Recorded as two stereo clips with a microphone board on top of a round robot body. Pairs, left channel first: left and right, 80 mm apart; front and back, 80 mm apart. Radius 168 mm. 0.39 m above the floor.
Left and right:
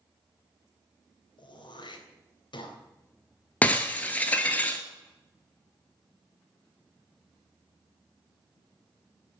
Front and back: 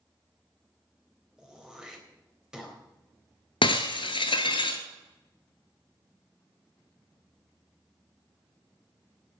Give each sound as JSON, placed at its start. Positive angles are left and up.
{"t": 1.4, "sound": "throat clearing", "azimuth_deg": 100, "distance_m": 3.5}
{"t": 3.6, "sound": "breaking glass", "azimuth_deg": 20, "distance_m": 0.7}